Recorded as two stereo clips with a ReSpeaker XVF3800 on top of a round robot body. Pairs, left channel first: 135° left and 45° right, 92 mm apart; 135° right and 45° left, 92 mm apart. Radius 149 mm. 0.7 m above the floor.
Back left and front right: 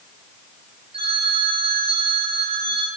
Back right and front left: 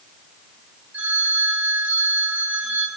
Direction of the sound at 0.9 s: 30° right.